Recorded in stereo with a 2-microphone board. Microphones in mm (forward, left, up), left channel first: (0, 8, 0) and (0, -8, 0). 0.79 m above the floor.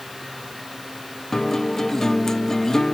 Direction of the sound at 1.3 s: 40° left (ahead or behind).